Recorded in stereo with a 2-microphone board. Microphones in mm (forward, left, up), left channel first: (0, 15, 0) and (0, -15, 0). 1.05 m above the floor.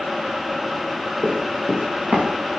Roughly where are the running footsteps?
Right.